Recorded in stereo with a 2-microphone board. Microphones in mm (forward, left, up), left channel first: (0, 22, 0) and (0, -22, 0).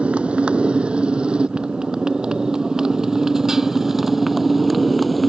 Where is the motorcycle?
30° right (ahead or behind); by 5.3 s centre (ahead or behind).